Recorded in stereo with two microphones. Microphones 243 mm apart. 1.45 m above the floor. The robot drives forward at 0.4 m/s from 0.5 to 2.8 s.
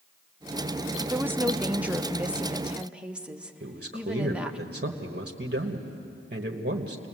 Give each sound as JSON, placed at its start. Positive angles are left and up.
{"t": 1.1, "sound": "a woman speaking", "side_deg": -10, "distance_m": 0.5}
{"t": 3.6, "sound": "a man speaking", "side_deg": -50, "distance_m": 1.3}